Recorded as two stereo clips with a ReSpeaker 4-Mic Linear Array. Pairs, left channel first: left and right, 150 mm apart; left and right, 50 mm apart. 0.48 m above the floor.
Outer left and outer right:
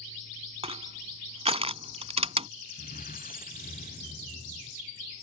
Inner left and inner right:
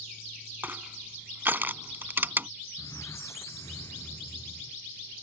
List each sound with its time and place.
0.6 s crushing: 45° right (ahead or behind)
2.8 s a squeak: 80° left